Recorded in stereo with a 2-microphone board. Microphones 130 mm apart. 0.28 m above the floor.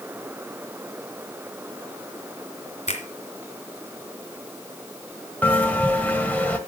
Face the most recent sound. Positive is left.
turn(degrees=10)  # may be behind; listen again after turning